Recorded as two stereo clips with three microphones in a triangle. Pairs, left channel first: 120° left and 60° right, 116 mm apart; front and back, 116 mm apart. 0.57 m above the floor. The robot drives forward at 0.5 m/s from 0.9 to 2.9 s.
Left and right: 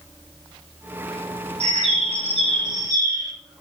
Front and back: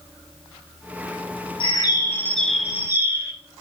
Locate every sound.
1.6 s a bird: 45° right, 0.7 m; by 3.3 s 115° right, 0.5 m